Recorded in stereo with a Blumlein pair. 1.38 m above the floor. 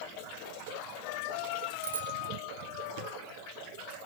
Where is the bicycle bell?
65° right, 3 m.